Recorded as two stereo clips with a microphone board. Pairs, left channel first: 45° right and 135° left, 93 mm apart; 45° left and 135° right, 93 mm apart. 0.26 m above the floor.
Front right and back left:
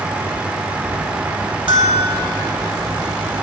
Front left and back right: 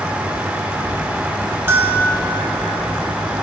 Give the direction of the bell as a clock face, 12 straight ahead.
7 o'clock.